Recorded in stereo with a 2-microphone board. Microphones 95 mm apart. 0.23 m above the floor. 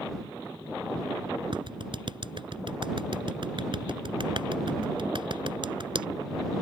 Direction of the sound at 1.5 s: 60° right (ahead or behind).